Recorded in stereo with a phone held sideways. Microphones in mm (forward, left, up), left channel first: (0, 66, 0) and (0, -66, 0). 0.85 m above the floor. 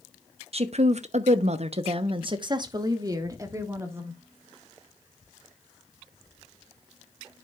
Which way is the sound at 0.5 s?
50° right (ahead or behind).